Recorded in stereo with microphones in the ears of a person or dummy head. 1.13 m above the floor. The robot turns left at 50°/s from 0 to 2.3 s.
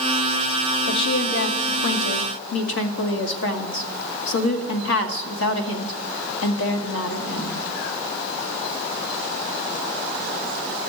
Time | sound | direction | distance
0.9 | a woman speaking | 150° left | 2 m